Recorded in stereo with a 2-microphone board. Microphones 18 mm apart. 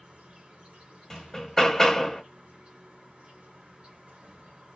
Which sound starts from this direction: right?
An insect, at 0.0 s.